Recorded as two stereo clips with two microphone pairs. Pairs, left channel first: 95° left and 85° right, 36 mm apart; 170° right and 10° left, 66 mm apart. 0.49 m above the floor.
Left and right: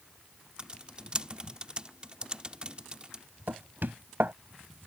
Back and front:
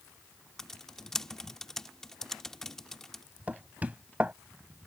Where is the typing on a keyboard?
100° right.